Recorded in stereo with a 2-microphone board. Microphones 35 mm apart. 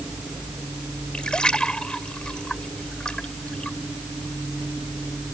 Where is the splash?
25° left (ahead or behind).